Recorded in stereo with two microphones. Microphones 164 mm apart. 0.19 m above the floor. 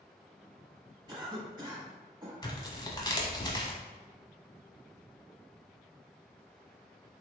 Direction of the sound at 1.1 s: 25° right (ahead or behind).